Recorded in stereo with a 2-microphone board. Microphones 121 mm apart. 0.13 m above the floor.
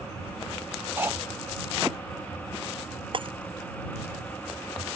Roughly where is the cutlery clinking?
Centre.